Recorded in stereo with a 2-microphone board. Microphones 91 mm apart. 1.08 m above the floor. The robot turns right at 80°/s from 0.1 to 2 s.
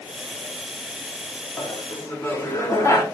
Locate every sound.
1.6 s laughter: 105° left, 1.1 m; by 3.0 s 140° left, 1.1 m